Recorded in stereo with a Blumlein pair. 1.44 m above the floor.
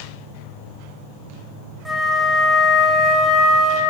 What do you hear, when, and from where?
1.9 s a flute: 5° left, 2.5 m